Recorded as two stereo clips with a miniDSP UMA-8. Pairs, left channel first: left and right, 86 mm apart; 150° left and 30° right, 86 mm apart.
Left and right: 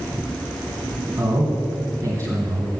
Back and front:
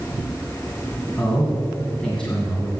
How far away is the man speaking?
About 2.5 m.